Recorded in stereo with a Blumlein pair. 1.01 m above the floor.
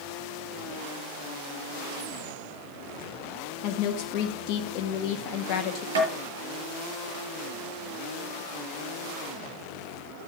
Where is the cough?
No cough in this recording.